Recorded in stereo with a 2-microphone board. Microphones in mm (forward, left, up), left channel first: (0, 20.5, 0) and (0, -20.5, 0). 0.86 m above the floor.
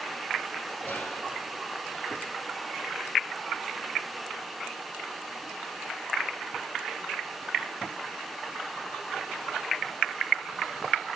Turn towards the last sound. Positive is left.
turn(degrees=45)  # may be behind; listen again after turning